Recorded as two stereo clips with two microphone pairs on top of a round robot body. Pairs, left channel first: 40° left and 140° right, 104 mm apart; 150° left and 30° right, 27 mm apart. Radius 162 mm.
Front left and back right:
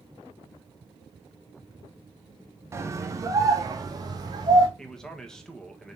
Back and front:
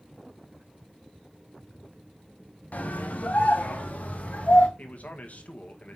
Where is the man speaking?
125° left, 1.7 m.